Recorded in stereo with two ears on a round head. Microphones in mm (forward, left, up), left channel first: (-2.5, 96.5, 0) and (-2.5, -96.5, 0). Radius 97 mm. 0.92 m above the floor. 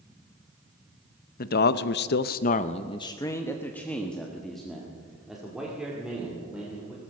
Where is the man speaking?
45° left (ahead or behind), 0.7 m; by 7.0 s 5° right (ahead or behind), 3 m.